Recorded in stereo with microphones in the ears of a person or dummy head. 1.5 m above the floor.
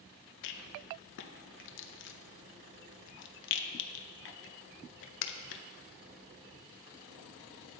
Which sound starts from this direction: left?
A rattle, at 0.4 s.